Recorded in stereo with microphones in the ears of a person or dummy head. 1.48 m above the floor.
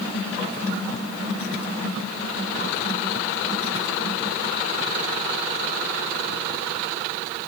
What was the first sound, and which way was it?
Only background noise.